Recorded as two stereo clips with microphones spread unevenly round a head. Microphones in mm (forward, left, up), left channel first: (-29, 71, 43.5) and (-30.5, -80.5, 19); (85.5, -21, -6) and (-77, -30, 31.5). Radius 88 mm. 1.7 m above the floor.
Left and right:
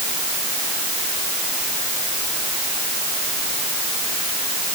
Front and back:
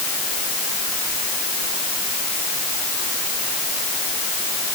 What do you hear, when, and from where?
Only background noise.